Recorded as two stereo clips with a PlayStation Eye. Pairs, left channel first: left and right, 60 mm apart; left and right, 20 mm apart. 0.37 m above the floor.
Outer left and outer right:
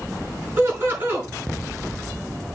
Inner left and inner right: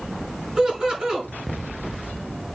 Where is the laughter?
40° right (ahead or behind), 5 m.